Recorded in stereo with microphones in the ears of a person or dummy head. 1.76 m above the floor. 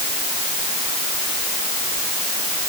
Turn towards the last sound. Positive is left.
No sound to turn to.